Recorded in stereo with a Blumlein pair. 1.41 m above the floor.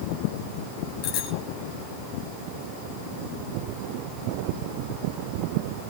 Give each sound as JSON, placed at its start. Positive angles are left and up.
{"t": 1.0, "sound": "a bicycle bell", "azimuth_deg": 45, "distance_m": 8.0}